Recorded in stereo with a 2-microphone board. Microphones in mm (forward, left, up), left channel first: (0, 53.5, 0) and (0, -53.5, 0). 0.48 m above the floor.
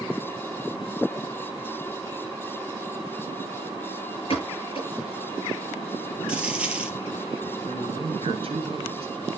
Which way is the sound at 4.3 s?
60° left (ahead or behind).